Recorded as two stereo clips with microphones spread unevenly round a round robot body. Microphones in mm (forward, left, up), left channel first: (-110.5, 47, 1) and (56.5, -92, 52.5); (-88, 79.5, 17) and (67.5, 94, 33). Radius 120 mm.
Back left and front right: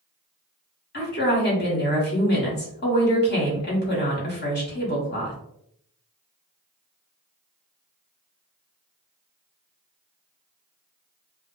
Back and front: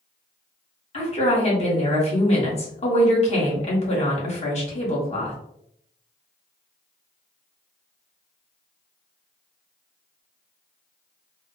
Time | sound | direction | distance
0.9 | a woman speaking | 150° left | 1.4 m